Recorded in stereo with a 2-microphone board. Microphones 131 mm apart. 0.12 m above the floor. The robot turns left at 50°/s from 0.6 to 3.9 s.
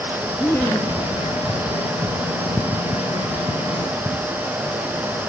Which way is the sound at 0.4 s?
15° left (ahead or behind).